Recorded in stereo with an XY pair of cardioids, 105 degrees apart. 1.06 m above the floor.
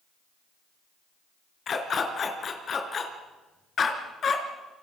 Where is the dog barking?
45° left, 4 m.